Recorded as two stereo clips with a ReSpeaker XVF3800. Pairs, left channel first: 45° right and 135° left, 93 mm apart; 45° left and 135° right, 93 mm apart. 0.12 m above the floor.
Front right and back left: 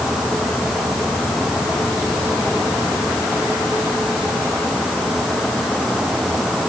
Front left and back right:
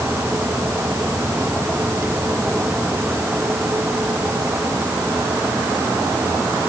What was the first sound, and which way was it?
Only background noise.